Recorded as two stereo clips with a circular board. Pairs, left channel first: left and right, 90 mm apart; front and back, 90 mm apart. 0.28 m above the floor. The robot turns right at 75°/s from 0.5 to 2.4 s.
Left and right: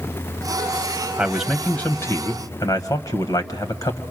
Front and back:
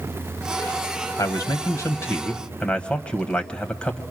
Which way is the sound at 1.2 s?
20° right.